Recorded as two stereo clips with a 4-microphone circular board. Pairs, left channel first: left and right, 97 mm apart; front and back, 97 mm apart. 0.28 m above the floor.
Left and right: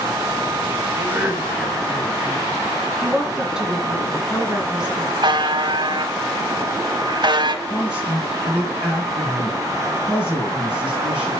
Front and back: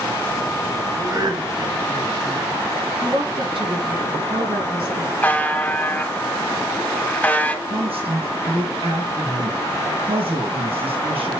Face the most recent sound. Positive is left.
turn(degrees=-175)